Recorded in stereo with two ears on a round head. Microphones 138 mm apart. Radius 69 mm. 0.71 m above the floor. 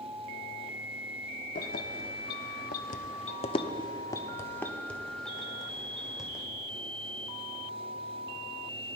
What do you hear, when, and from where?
1.6 s keys jangling: 60° left (ahead or behind), 1.0 m; by 6.4 s 5° right (ahead or behind), 2.0 m